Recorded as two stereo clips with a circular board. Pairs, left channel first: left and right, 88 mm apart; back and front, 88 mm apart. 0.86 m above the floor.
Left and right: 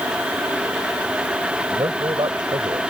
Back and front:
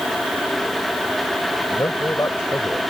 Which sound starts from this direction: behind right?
A man speaking, at 1.7 s.